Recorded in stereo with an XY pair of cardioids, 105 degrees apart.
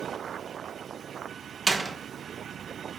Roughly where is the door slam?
Ahead right.